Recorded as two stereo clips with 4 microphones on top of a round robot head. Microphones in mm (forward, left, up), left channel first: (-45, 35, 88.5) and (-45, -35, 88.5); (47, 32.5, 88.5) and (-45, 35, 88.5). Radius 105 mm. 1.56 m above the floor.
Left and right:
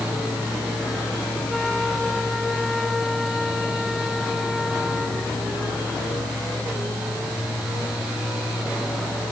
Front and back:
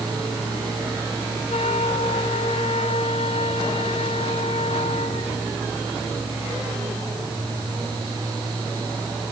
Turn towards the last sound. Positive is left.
turn(degrees=0)